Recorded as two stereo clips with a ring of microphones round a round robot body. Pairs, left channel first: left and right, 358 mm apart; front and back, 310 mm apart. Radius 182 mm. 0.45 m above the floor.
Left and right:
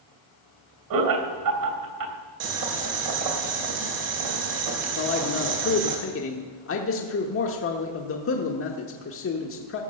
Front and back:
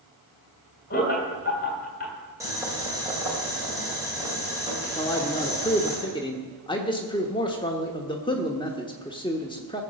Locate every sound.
0.9 s laughter: 60° right, 3 m
2.4 s boiling: 100° right, 2.5 m
5.0 s a man speaking: 65° left, 1.1 m